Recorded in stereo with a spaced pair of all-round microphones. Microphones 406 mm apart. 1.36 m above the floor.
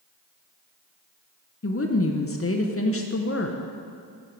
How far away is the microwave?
No microwave in this recording.